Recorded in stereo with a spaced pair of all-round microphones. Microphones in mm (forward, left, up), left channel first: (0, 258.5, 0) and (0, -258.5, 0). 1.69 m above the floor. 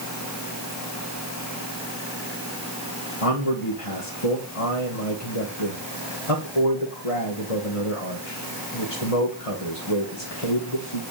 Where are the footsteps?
No footsteps in this recording.